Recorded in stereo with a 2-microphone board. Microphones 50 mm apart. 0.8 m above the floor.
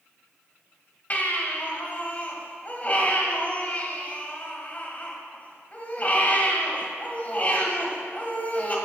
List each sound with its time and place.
1.1 s a baby crying: 35° left (ahead or behind), 1.7 m